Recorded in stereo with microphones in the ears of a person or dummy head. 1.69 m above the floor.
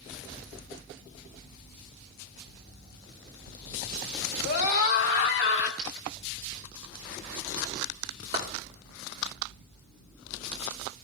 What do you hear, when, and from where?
4.5 s a scream: 60° left (ahead or behind), 1.9 m; by 5.7 s 80° left, 3 m
5.8 s a dropped coin: 35° right (ahead or behind), 1.1 m
8.3 s a clap: 25° right (ahead or behind), 2.5 m